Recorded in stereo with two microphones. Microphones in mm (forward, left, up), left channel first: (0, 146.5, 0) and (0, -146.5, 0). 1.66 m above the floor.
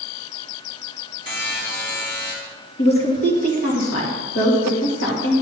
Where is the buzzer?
40° left (ahead or behind), 2.0 m.